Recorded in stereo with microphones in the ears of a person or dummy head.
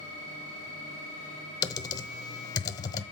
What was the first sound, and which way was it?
Typing on a keyboard, 20° left (ahead or behind).